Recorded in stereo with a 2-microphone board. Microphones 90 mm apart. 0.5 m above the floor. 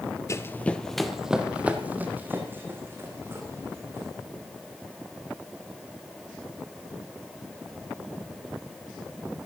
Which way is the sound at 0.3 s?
35° left (ahead or behind).